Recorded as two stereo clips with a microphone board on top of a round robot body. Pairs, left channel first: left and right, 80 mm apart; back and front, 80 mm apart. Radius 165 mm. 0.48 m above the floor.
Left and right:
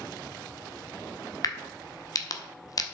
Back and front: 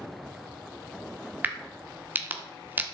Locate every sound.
1.4 s a crack: 65° left, 1.4 m